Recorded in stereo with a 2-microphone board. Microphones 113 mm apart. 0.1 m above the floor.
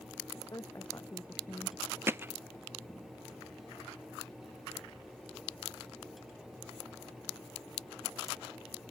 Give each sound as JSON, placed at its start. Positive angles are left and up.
{"t": 0.3, "sound": "a woman speaking", "side_deg": 30}
{"t": 2.1, "sound": "hammering", "side_deg": -20}